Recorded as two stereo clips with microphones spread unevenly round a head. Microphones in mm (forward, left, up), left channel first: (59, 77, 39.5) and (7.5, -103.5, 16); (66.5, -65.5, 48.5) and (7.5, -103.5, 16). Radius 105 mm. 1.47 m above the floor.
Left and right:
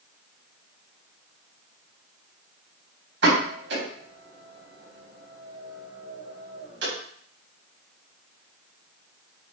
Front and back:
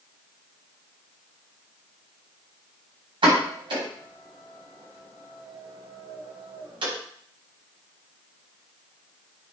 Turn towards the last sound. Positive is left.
turn(degrees=-145)